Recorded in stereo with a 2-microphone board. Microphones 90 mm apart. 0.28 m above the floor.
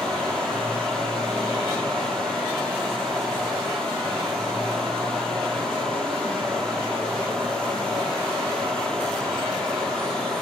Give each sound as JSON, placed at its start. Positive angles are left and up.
{"t": 0.0, "sound": "running water", "side_deg": 5, "distance_m": 1.0}